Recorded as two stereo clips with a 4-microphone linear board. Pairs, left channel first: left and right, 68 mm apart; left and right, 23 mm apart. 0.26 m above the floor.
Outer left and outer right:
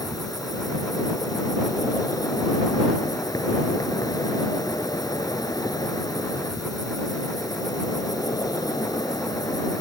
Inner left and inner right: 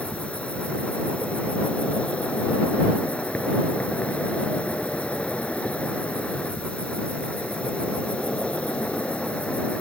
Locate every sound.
0.0 s an insect: 70° left (ahead or behind)